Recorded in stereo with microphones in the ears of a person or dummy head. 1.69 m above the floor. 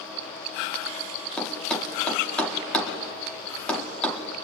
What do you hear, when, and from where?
1.4 s a thud: 5° left (ahead or behind), 1.7 m